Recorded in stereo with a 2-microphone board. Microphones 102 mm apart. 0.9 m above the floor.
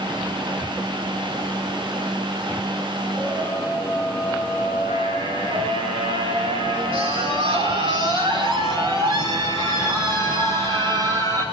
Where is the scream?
30° right (ahead or behind), 4.5 m; by 11.4 s 45° right (ahead or behind), 11.5 m.